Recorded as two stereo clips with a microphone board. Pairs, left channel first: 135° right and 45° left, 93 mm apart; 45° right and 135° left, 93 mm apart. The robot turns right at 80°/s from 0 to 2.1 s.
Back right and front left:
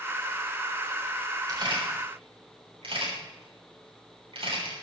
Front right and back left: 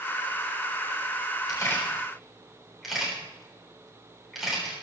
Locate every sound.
1.5 s a camera shutter: straight ahead, 6.5 m; by 4.7 s 45° left, 6.5 m